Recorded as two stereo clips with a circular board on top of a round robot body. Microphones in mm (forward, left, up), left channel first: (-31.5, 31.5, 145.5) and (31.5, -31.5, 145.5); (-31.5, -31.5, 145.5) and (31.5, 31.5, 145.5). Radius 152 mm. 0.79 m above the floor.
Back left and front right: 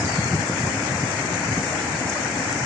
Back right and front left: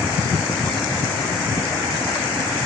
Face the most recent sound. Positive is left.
No sound to turn to.